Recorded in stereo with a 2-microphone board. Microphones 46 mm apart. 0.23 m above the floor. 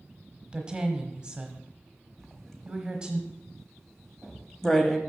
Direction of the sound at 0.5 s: 20° right (ahead or behind).